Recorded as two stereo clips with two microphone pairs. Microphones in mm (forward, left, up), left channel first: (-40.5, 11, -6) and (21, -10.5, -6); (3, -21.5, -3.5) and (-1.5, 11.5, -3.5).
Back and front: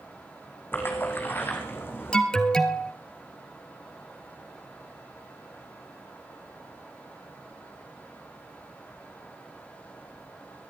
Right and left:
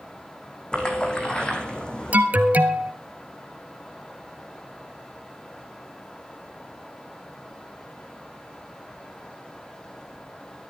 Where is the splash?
145° right, 2.5 m.